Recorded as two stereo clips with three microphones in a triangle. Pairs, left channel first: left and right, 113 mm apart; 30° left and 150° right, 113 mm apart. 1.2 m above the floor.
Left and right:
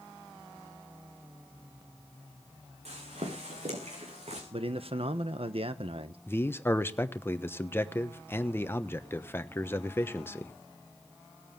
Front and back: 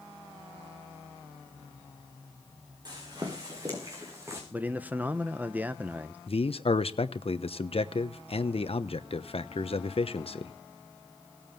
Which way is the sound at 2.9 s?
100° right.